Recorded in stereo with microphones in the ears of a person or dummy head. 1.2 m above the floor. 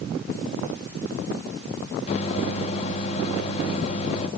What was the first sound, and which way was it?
A microwave, 40° left (ahead or behind).